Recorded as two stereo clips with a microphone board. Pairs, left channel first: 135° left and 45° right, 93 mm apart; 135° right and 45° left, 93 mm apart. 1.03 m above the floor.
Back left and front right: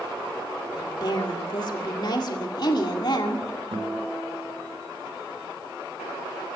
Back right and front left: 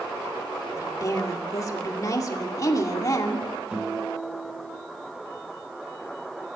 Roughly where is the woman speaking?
Behind.